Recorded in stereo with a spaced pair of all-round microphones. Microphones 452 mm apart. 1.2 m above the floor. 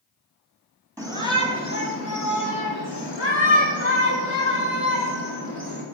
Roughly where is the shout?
Centre.